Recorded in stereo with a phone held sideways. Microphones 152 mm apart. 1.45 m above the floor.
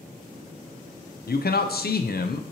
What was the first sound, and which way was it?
A man speaking, 75° left (ahead or behind).